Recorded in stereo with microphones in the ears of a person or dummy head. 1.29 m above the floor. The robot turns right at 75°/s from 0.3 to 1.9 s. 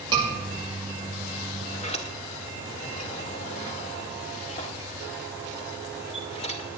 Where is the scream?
30° right (ahead or behind), 7 m.